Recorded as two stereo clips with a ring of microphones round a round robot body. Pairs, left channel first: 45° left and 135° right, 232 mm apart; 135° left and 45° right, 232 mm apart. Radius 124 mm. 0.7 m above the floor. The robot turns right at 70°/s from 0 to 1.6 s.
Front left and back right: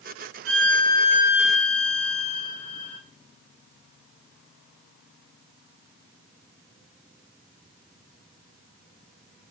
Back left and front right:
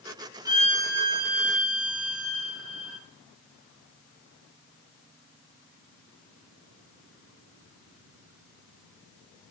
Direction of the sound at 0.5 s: 120° right.